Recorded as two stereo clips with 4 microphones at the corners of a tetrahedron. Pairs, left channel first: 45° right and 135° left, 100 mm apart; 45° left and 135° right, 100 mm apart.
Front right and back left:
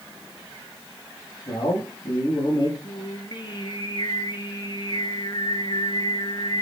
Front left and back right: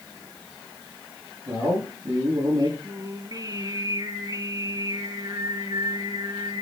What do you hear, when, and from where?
1.5 s a man speaking: 85° right, 6 m
2.8 s singing: 85° right, 1.8 m